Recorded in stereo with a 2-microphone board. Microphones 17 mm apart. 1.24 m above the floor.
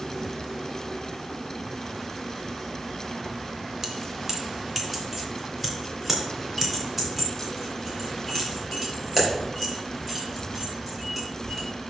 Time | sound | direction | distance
3.8 | keys jangling | 30° right (ahead or behind) | 1.3 m